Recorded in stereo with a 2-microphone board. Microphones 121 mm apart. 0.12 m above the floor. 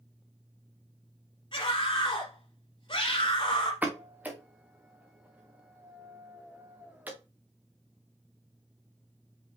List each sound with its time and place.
1.5 s a scream: 45° left (ahead or behind), 3 m
3.8 s a pop: 15° right (ahead or behind), 1.8 m